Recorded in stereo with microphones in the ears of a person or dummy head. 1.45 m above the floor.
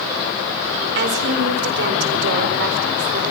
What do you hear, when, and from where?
0.9 s a woman speaking: 65° right (ahead or behind), 4 m